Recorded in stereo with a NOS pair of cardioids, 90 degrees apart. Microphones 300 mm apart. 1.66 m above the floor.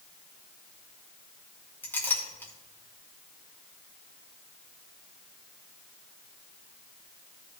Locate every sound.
1.8 s a clink: 5° left, 3 m